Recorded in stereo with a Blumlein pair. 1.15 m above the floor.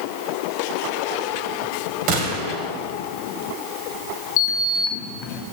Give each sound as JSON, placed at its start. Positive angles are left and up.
{"t": 2.1, "sound": "a gunshot", "azimuth_deg": -40, "distance_m": 2.5}
{"t": 4.4, "sound": "a sliding door", "azimuth_deg": 40, "distance_m": 1.2}